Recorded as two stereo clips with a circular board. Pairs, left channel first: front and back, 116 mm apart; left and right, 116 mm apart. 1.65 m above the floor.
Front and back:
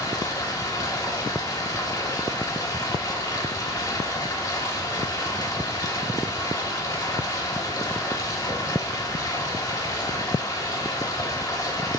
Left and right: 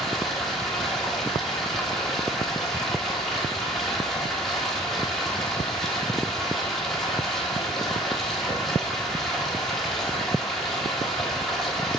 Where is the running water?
5° left, 1.3 m.